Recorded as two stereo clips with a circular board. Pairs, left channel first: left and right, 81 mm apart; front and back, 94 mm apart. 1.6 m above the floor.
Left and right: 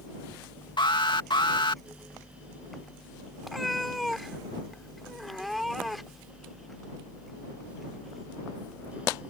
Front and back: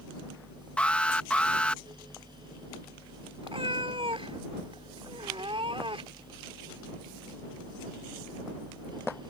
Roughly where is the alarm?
Left.